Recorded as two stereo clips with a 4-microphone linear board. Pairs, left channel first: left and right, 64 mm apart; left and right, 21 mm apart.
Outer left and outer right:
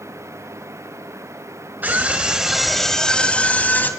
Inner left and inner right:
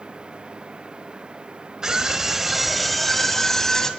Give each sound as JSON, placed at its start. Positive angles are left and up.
{"t": 1.8, "sound": "a scream", "side_deg": -30, "distance_m": 1.2}